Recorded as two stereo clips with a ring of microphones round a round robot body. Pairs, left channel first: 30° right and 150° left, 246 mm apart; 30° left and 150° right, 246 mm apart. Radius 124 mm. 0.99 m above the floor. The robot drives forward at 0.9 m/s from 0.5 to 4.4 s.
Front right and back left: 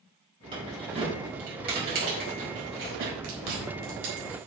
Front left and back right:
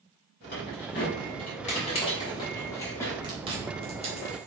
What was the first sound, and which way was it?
Keys jangling, 80° left.